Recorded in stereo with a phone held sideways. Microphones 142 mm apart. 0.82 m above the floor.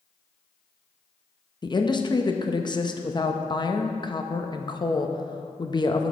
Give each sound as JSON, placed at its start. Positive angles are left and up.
{"t": 1.6, "sound": "a woman speaking", "side_deg": 35, "distance_m": 0.6}